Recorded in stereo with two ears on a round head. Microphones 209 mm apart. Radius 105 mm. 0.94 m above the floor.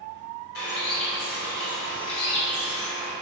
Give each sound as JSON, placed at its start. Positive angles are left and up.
{"t": 0.6, "sound": "a bird", "side_deg": 70, "distance_m": 3.0}